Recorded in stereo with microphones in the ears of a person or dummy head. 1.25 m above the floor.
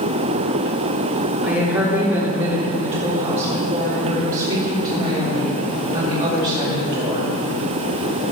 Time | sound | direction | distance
1.4 | a woman speaking | 15° right (ahead or behind) | 3 m